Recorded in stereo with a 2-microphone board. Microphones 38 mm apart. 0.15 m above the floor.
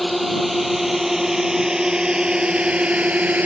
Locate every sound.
0.0 s a drone: centre (ahead or behind); by 3.5 s 40° right (ahead or behind)